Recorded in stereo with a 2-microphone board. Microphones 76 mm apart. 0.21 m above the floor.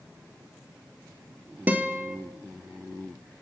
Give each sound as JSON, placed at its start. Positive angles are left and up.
{"t": 1.7, "sound": "a guitar", "side_deg": -20, "distance_m": 0.6}